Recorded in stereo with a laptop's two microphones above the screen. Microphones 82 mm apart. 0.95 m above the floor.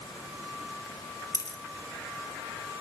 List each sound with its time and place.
1.3 s a dropped coin: 50° left (ahead or behind), 2 m